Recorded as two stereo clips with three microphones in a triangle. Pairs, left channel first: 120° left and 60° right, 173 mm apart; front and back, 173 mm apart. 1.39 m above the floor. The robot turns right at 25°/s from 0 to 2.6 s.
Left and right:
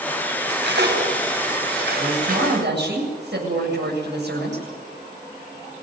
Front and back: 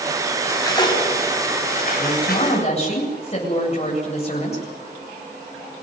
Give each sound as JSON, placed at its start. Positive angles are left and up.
{"t": 0.4, "sound": "cutlery clinking", "azimuth_deg": -75, "distance_m": 5.5}
{"t": 2.0, "sound": "a woman speaking", "azimuth_deg": -70, "distance_m": 8.0}